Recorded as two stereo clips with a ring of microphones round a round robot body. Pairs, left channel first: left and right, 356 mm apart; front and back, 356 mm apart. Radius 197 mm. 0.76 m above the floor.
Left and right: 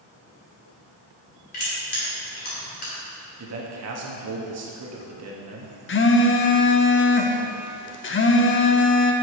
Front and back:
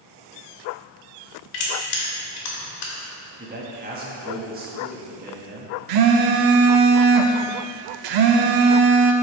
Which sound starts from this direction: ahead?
Crushing, at 1.5 s.